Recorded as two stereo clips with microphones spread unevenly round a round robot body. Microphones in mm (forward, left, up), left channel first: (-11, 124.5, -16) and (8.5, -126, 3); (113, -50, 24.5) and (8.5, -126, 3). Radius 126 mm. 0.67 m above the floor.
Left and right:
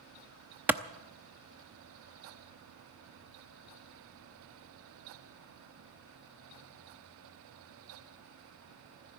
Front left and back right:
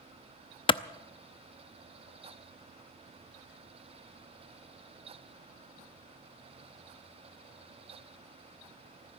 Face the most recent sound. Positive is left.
turn(degrees=0)